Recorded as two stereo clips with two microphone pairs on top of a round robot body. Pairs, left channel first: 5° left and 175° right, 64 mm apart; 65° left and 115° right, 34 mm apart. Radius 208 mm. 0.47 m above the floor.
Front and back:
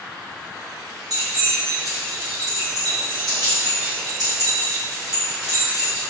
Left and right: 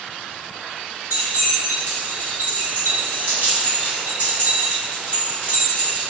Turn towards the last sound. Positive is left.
turn(degrees=-160)